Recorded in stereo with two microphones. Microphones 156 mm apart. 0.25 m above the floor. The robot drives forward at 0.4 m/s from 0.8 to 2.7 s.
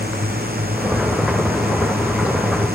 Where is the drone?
75° right (ahead or behind).